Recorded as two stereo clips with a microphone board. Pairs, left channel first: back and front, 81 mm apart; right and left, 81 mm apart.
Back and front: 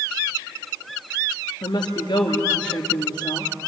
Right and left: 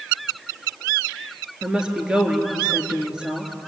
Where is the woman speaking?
170° left, 4 m.